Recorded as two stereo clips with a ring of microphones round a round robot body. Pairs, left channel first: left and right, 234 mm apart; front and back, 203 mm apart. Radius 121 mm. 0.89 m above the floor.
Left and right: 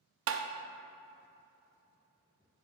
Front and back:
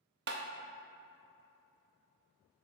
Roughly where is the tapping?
Behind right.